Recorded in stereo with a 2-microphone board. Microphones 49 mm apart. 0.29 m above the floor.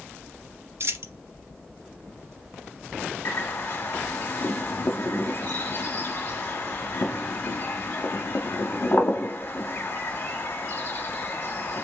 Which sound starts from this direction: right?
A dropped coin, at 0.8 s.